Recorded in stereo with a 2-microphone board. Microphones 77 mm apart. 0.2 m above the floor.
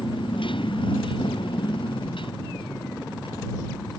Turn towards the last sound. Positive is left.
turn(degrees=75)  # may be behind; listen again after turning